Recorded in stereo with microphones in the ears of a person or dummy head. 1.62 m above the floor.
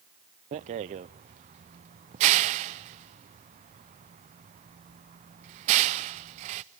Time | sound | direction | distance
0.5 | a rattle | 30° right (ahead or behind) | 0.5 m